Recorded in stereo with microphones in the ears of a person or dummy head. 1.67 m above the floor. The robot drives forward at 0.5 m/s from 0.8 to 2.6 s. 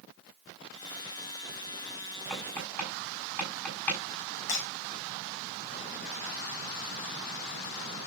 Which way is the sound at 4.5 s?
60° left (ahead or behind).